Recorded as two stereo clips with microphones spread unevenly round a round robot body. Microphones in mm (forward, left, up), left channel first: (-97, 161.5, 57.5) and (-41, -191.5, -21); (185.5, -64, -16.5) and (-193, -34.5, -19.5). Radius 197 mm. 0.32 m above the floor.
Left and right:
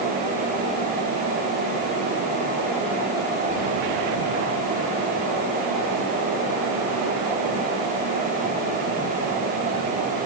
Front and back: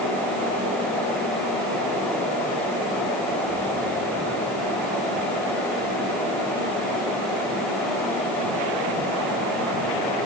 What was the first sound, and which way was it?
Only background noise.